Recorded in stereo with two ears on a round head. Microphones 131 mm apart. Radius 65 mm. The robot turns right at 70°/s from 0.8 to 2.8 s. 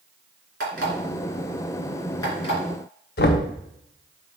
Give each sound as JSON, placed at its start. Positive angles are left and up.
{"t": 0.6, "sound": "an alarm clock", "side_deg": -75, "distance_m": 3.5}
{"t": 3.2, "sound": "knocking", "side_deg": 70, "distance_m": 0.8}